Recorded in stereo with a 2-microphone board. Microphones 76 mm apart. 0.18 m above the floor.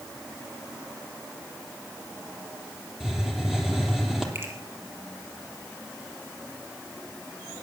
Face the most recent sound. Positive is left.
turn(degrees=-35)  # may be behind; listen again after turning